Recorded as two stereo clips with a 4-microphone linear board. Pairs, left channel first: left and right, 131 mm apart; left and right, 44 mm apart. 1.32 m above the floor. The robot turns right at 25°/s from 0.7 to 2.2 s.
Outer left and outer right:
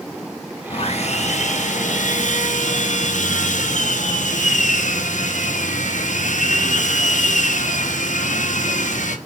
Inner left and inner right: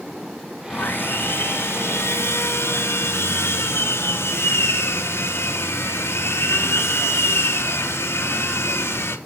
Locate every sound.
0.7 s sawing: 55° left, 1.2 m; by 9.2 s 90° left, 1.2 m